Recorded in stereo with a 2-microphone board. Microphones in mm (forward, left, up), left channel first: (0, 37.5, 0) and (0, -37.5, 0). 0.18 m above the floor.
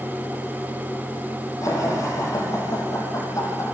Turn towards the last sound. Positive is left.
turn(degrees=45)  # may be behind; listen again after turning